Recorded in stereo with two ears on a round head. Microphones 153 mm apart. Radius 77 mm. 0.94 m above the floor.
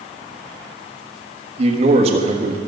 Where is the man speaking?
35° right (ahead or behind), 1.3 m.